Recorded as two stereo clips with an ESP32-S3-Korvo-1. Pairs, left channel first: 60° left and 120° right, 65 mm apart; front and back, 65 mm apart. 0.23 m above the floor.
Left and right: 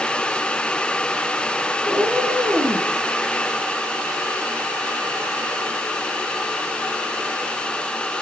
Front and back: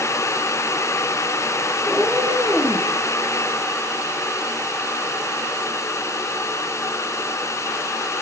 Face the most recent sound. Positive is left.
turn(degrees=-110)